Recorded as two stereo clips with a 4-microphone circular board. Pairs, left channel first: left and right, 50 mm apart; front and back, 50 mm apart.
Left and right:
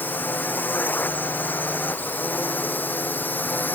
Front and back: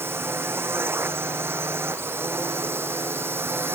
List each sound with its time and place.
0.0 s a drone: 145° left; by 3.8 s 140° left